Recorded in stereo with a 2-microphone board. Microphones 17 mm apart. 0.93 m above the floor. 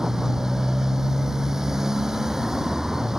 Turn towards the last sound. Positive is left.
turn(degrees=-30)  # may be behind; listen again after turning